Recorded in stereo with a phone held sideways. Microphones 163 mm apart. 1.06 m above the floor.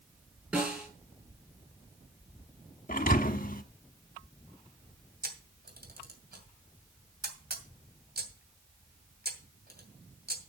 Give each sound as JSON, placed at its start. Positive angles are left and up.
{"t": 0.5, "sound": "a snare drum", "side_deg": -10, "distance_m": 5.5}
{"t": 2.9, "sound": "a thud", "side_deg": 55, "distance_m": 1.0}
{"t": 5.2, "sound": "a camera shutter", "side_deg": -75, "distance_m": 2.5}